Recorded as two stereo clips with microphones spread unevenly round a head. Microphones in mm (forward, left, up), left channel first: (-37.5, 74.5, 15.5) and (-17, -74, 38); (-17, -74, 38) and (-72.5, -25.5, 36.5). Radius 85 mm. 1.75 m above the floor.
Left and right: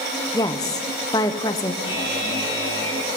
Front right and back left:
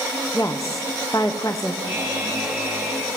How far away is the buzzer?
About 8.5 m.